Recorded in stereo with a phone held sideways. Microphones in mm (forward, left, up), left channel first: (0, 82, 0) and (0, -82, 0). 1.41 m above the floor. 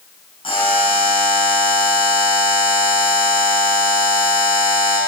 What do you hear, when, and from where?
0.4 s a buzzer: 30° left (ahead or behind), 7 m